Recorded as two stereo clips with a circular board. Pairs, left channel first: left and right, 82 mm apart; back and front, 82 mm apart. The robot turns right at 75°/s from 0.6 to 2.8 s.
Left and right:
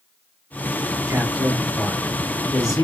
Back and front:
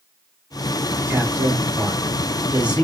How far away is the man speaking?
About 1.7 m.